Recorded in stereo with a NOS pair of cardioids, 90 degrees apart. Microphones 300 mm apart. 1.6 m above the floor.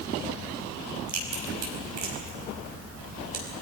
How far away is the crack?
About 5.5 m.